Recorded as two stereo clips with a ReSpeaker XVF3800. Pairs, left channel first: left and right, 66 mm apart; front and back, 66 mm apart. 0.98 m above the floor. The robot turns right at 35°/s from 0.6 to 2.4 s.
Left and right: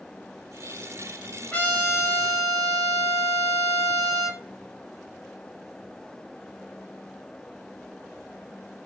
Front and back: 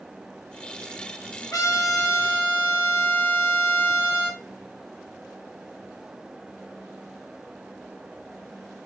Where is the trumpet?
25° left, 2 m; by 4.4 s 55° left, 2 m.